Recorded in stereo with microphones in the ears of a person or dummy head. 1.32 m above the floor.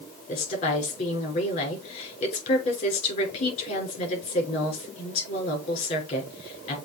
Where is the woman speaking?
40° left (ahead or behind), 5 m.